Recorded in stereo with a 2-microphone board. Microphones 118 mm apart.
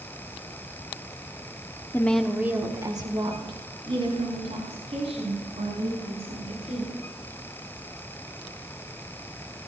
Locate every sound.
1.9 s a woman speaking: 20° left (ahead or behind), 1.1 m; by 6.9 s 60° right (ahead or behind), 7.5 m